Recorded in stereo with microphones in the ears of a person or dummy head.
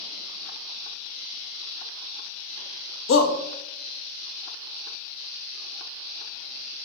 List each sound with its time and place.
3.1 s a shout: 70° left (ahead or behind), 0.7 m